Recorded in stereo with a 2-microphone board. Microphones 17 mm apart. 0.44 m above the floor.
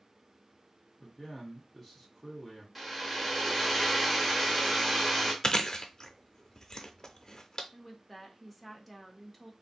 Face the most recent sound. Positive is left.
turn(degrees=0)  # may be behind; listen again after turning